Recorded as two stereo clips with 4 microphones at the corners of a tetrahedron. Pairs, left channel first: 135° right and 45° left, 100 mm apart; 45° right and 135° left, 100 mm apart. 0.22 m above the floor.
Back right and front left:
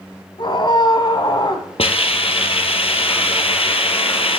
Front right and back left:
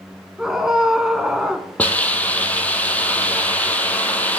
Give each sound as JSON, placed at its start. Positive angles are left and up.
{"t": 0.4, "sound": "a scream", "azimuth_deg": -140, "distance_m": 1.4}
{"t": 1.8, "sound": "a hiss", "azimuth_deg": -120, "distance_m": 0.9}